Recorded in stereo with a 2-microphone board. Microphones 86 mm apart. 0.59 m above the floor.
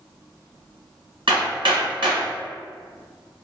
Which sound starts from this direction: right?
Hammering, at 1.3 s.